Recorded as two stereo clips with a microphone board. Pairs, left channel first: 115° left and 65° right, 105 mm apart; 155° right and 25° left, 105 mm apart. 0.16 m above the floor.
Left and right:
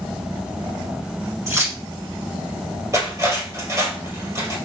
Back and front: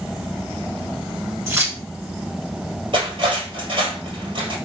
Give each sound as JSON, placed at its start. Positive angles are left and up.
{"t": 1.5, "sound": "keys jangling", "azimuth_deg": -25, "distance_m": 1.2}
{"t": 2.9, "sound": "cutlery clinking", "azimuth_deg": -10, "distance_m": 1.9}